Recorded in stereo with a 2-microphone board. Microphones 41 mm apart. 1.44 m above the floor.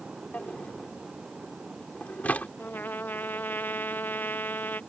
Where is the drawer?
40° left (ahead or behind).